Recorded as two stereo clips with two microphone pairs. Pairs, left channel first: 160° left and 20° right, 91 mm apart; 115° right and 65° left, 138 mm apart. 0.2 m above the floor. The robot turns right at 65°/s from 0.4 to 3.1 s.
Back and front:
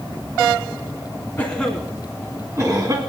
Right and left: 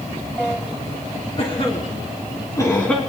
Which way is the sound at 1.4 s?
140° right.